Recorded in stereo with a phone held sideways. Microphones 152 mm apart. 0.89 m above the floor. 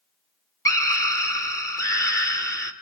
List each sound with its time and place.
0.7 s a scream: 20° left (ahead or behind), 2.5 m